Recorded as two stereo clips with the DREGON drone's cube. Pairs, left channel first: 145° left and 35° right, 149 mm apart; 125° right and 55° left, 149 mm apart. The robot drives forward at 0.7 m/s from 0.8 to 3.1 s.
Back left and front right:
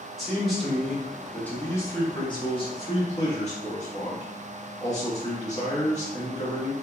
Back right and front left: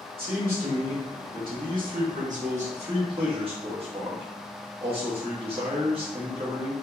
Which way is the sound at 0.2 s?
55° left.